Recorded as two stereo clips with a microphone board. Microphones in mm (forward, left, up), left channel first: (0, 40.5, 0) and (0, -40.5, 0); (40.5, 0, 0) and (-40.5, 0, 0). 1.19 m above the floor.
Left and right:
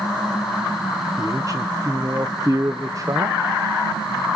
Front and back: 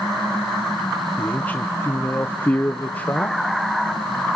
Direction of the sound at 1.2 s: 65° right.